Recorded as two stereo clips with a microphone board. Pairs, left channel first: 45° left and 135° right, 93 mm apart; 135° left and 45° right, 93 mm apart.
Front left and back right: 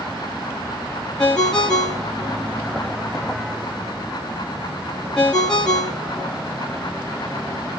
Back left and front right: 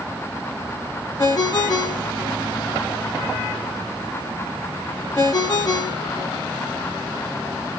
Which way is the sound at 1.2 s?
125° left.